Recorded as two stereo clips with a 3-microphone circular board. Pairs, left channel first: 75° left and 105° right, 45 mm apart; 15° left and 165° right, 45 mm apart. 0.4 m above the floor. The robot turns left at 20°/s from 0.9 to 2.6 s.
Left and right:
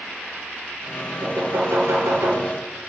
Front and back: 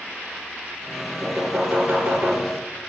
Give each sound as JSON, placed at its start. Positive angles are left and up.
{"t": 1.2, "sound": "knocking", "azimuth_deg": -85, "distance_m": 3.5}